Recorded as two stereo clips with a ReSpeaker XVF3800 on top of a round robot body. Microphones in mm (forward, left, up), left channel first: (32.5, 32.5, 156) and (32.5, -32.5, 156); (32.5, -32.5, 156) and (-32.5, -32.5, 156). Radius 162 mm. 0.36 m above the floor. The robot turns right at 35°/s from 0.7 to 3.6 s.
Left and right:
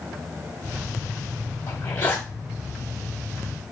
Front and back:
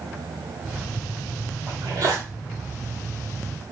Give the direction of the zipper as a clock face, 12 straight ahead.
7 o'clock.